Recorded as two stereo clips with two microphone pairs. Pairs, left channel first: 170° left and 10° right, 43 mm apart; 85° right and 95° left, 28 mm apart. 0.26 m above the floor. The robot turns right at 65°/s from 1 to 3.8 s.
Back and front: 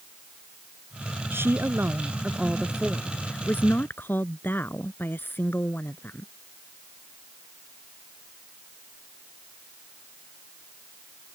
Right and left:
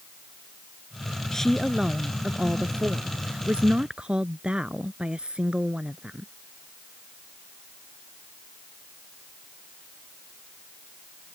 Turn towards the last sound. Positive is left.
turn(degrees=140)